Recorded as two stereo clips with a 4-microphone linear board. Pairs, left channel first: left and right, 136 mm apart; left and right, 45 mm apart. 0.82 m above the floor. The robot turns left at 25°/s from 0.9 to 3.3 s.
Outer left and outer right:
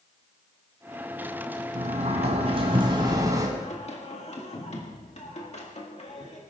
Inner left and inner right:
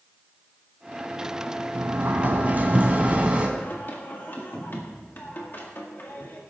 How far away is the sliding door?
About 2 m.